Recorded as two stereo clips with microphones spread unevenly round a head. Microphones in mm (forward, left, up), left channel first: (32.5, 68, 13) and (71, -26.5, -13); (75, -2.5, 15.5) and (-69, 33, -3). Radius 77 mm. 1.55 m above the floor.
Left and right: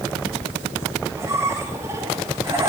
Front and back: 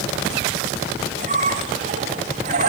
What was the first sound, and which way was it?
A squeak, 145° right.